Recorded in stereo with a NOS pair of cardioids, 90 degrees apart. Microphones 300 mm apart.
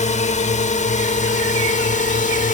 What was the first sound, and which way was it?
A drone, 25° left.